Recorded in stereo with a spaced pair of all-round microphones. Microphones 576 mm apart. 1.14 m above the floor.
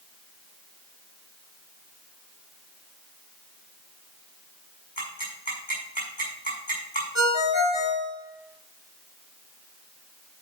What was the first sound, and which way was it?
Ticking, 45° left (ahead or behind).